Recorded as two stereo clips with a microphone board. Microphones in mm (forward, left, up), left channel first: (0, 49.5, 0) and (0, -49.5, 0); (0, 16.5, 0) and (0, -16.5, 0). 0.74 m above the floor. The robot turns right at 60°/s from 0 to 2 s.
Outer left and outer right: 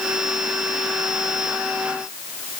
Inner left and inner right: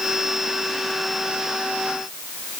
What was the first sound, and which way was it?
Only background noise.